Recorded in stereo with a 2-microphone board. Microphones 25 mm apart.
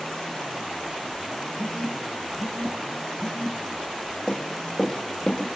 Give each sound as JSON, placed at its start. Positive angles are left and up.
{"t": 1.6, "sound": "a phone buzzing", "side_deg": 60, "distance_m": 0.9}
{"t": 4.3, "sound": "running footsteps", "side_deg": 15, "distance_m": 1.9}